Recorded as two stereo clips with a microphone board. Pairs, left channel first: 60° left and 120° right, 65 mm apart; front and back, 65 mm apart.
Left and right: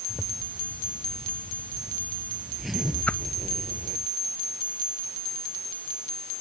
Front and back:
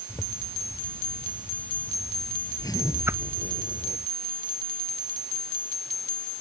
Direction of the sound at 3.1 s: 130° left.